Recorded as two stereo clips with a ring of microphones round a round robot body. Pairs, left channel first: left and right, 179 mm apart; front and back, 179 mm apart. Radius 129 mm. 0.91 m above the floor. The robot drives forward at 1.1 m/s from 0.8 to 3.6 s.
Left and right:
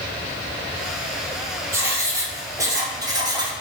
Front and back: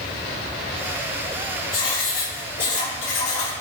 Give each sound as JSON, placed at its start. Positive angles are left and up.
{"t": 1.7, "sound": "writing", "azimuth_deg": -15, "distance_m": 4.5}